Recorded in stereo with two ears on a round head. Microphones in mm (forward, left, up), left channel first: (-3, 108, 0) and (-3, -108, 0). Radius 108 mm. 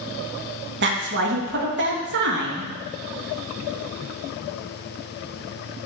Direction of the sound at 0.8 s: 50° right (ahead or behind).